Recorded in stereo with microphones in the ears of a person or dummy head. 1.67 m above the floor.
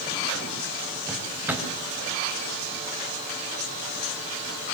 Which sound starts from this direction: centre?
A drawer, at 1.1 s.